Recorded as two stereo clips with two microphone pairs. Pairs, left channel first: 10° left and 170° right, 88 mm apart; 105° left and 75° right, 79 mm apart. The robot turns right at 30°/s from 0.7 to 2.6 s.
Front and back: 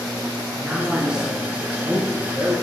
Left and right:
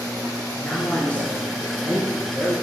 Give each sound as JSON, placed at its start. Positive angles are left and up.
{"t": 0.6, "sound": "a man speaking", "azimuth_deg": 120, "distance_m": 1.4}